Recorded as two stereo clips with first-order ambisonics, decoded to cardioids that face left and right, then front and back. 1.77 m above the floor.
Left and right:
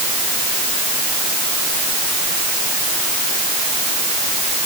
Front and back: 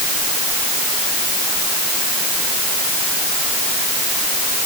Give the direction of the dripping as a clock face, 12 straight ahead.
I don't hear dripping.